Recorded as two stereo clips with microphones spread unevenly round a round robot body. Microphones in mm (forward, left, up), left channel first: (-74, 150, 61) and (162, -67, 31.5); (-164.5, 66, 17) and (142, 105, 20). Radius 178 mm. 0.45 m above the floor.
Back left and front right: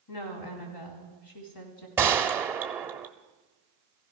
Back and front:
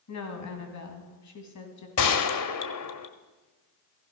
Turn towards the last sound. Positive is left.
turn(degrees=-125)